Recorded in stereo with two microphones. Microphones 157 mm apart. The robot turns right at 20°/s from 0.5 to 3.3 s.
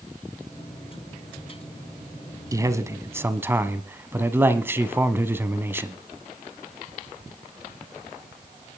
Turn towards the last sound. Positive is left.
turn(degrees=-15)  # may be behind; listen again after turning